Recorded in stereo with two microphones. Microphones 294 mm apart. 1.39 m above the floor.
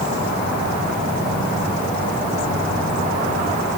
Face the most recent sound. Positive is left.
No sound to turn to.